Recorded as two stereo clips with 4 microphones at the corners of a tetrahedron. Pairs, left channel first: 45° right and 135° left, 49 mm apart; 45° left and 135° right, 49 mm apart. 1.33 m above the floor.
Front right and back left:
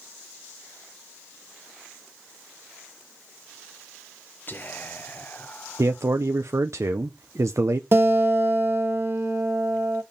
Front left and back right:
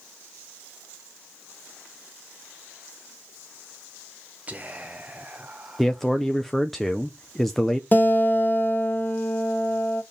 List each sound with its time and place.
4.5 s whispering: 85° right, 0.8 m
5.8 s a man speaking: 130° left, 0.6 m
7.9 s a guitar: 95° left, 1.6 m